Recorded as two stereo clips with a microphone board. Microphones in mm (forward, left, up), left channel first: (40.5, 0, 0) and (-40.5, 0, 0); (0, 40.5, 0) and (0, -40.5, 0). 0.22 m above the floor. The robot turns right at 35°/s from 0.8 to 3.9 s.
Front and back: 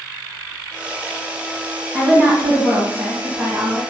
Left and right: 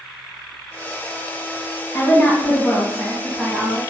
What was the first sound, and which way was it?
A woman speaking, 140° left.